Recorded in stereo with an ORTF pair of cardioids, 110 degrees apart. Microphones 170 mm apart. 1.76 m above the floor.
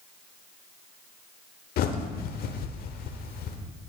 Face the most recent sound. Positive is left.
turn(degrees=65)